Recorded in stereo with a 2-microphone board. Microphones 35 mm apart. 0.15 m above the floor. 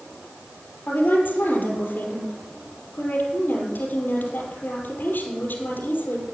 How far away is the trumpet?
No trumpet in this recording.